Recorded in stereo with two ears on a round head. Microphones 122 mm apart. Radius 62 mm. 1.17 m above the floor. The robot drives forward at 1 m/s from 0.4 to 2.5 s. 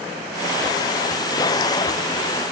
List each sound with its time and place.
Only background noise.